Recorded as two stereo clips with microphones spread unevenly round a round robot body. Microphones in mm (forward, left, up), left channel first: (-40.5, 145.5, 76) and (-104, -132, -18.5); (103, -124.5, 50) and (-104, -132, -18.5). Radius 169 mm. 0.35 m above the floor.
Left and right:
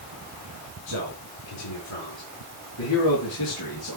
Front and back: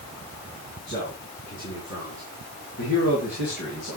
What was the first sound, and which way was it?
A man speaking, 70° left.